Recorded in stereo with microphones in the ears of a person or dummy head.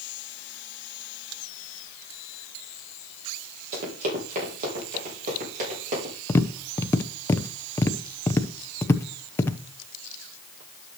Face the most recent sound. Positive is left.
turn(degrees=10)  # may be behind; listen again after turning